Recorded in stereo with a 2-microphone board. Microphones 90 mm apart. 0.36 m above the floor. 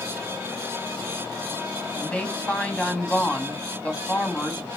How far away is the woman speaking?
About 2 m.